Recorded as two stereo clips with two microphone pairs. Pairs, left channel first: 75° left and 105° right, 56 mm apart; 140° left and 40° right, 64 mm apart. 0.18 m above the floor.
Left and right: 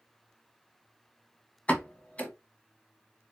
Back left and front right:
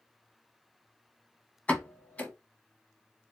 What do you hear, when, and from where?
1.7 s a pop: 95° left, 0.8 m